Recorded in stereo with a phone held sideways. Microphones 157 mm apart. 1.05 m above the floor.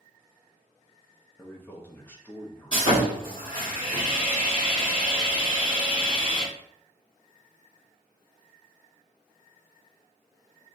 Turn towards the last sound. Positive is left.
turn(degrees=35)  # may be behind; listen again after turning